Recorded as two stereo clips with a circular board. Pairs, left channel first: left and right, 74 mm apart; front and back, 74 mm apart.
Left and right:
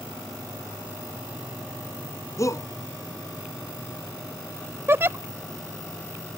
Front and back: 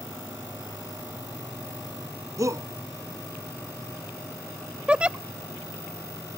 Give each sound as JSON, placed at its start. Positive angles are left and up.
{"t": 2.4, "sound": "a shout", "azimuth_deg": 135}
{"t": 4.9, "sound": "a giggle", "azimuth_deg": -115}